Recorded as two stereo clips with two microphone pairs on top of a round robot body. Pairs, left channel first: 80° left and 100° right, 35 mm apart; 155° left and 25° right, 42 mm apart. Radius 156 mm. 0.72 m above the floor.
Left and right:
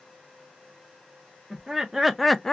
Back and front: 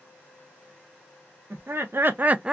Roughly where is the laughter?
Ahead right.